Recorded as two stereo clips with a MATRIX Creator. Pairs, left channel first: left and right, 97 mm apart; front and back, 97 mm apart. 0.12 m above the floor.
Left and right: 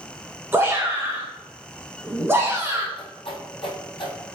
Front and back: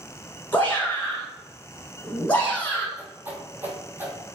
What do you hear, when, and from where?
0.5 s a shout: 55° right, 1.2 m
3.0 s a whoosh: 110° left, 0.7 m